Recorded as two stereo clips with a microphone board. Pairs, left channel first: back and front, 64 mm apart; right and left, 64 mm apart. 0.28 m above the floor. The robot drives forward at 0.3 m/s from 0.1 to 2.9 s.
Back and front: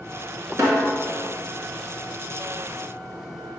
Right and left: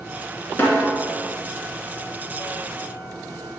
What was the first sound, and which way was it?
A snare drum, 35° right.